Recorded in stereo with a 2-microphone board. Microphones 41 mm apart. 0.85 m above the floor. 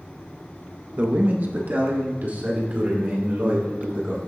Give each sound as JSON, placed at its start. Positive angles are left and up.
{"t": 1.0, "sound": "a man speaking", "side_deg": -35, "distance_m": 0.9}